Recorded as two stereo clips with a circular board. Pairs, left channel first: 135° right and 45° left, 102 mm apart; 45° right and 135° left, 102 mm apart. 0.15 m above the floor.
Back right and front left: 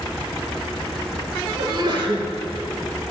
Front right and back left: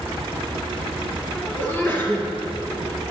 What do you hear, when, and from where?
1.6 s a sneeze: 20° left, 3 m